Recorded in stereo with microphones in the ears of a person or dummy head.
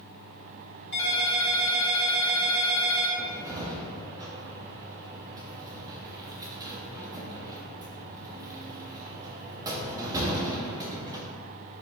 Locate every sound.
0.9 s a ringtone: 60° left (ahead or behind), 1.3 m
3.2 s a cupboard door: 20° right (ahead or behind), 0.5 m